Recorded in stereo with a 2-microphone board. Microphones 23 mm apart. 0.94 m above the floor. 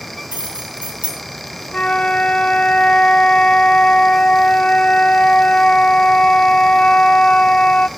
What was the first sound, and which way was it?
Keys jangling, 90° right.